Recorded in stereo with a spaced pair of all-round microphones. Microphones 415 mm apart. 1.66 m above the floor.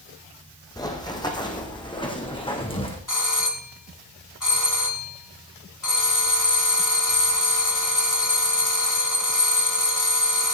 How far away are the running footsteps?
About 4 m.